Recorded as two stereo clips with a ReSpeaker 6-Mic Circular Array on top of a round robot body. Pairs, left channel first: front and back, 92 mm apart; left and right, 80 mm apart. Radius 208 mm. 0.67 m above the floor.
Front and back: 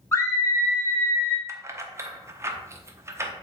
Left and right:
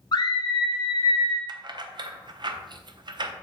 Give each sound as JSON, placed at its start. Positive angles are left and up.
{"t": 0.1, "sound": "a scream", "azimuth_deg": 60, "distance_m": 2.5}
{"t": 1.5, "sound": "keys jangling", "azimuth_deg": -120, "distance_m": 1.0}